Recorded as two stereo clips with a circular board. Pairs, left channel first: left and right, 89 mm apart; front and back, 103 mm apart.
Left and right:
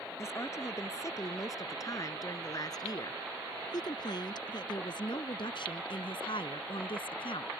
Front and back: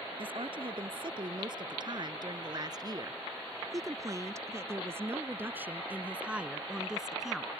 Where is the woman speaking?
145° left; by 7.5 s 90° left.